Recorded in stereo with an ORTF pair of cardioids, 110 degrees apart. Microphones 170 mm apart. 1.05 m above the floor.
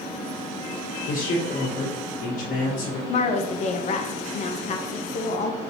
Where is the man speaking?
50° left, 1.7 m.